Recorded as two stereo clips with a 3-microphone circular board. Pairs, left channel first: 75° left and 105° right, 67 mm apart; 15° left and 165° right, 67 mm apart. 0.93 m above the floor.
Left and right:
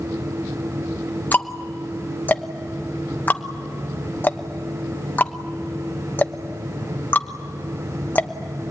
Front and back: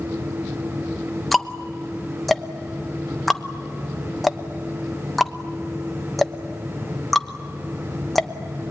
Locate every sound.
1.3 s ticking: 105° left, 1.0 m